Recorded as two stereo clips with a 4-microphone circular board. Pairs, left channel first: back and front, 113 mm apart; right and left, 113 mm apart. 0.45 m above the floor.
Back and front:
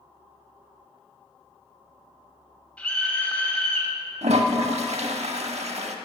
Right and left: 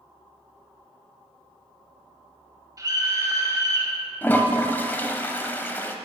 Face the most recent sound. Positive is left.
turn(degrees=-20)